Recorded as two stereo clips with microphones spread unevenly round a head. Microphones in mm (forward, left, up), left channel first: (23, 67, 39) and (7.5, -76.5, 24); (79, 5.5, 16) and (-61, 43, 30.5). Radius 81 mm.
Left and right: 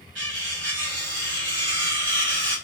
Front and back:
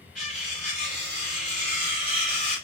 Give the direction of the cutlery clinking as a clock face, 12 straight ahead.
3 o'clock.